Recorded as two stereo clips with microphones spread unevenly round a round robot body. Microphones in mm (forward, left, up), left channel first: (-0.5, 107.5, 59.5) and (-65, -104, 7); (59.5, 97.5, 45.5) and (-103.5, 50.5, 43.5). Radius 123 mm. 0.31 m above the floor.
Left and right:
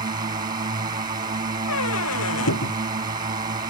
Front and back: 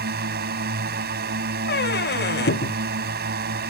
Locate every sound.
0.0 s a drone: 165° right
1.7 s a squeak: 40° left